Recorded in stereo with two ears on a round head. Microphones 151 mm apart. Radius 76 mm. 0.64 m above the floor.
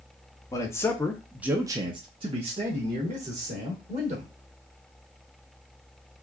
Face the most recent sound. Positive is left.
turn(degrees=-40)  # may be behind; listen again after turning